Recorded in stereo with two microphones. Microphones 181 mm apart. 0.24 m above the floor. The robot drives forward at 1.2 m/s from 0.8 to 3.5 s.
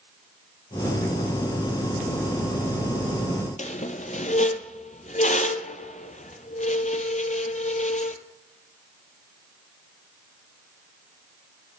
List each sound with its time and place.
3.6 s a squeak: 45° left (ahead or behind), 0.6 m